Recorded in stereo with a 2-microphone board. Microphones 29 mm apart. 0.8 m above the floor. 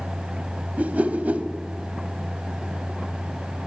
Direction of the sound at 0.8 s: 65° right (ahead or behind).